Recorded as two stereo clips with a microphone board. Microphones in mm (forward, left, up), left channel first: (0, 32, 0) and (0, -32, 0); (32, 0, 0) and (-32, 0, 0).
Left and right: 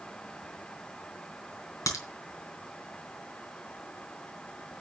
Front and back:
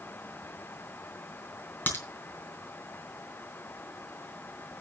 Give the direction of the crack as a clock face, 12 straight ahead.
10 o'clock.